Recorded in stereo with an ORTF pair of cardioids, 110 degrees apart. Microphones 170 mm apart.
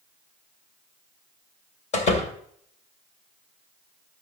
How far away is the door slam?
About 3 m.